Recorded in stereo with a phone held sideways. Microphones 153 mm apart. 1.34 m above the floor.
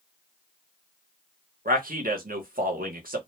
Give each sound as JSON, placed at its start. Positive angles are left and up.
{"t": 1.6, "sound": "a man speaking", "side_deg": -70, "distance_m": 0.9}